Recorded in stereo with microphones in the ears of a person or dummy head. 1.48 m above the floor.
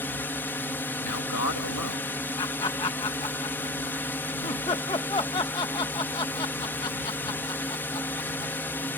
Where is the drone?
10° left (ahead or behind).